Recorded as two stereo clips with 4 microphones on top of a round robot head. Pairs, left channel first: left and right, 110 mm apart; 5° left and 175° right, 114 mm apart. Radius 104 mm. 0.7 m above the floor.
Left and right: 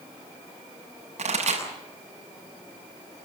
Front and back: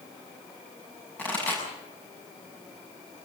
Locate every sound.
1.2 s a pop: 75° right, 7 m